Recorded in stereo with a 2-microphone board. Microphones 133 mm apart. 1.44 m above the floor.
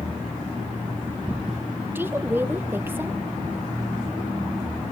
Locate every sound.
1.9 s a woman speaking: 15° right (ahead or behind), 1.1 m